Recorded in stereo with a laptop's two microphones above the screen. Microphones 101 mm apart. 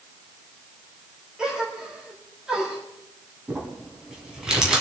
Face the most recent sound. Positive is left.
turn(degrees=-10)  # may be behind; listen again after turning